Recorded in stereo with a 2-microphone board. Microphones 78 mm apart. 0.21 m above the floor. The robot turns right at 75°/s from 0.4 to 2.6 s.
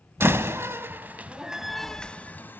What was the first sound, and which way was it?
A door slam, 30° right (ahead or behind).